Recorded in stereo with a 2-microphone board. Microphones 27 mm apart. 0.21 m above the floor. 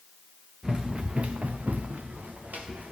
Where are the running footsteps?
25° right (ahead or behind), 1.2 m; by 2.9 s 75° right (ahead or behind), 2.5 m.